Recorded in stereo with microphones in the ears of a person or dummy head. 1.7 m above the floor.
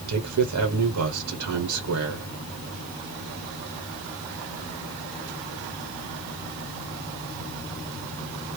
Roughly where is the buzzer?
I don't hear a buzzer.